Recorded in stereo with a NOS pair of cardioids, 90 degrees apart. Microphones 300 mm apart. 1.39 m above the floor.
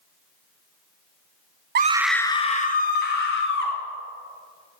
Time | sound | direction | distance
1.8 | a scream | 35° right | 0.7 m